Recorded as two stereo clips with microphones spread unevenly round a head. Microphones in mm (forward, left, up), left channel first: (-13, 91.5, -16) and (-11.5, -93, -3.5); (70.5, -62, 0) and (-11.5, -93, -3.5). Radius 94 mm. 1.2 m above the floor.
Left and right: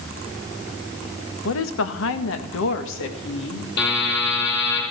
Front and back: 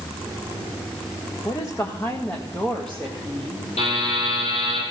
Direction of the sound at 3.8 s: 55° left.